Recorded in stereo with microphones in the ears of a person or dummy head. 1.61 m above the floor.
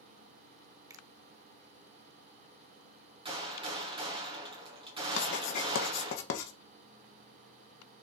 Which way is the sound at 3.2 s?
35° right (ahead or behind).